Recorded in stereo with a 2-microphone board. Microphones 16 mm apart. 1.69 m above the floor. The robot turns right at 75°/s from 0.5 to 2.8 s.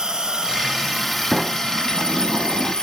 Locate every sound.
0.0 s an insect: 50° right, 1.8 m; by 2.8 s 125° left, 1.8 m
1.3 s a sliding door: 160° right, 1.9 m; by 2.7 s 55° right, 1.9 m